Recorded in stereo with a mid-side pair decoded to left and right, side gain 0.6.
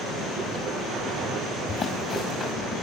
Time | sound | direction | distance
1.7 | running footsteps | 45° left | 6.5 m